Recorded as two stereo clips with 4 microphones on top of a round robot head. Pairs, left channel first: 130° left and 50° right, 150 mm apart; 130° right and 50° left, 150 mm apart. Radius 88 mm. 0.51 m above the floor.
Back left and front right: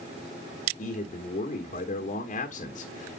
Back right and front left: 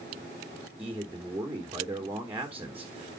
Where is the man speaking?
125° left, 1.5 m.